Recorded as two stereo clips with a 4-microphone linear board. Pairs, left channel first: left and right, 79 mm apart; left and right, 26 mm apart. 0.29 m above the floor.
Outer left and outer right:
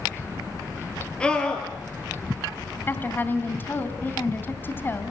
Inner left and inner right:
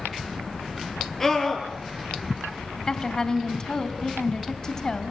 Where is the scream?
15° left (ahead or behind), 6.5 m.